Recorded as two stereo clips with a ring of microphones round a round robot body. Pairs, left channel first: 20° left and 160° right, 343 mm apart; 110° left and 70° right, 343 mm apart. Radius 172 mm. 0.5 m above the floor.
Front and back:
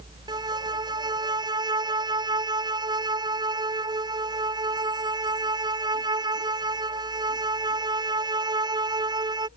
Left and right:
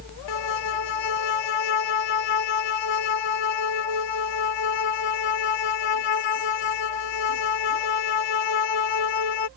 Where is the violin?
125° left.